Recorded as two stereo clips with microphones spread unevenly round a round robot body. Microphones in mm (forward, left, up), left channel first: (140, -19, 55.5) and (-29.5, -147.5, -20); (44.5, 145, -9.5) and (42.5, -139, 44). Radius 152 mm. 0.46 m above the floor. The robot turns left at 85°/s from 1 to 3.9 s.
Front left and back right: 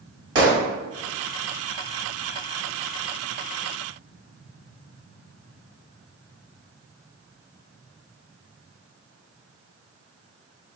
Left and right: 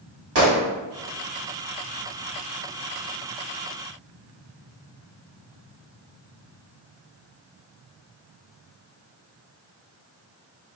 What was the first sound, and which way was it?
A gunshot, 140° right.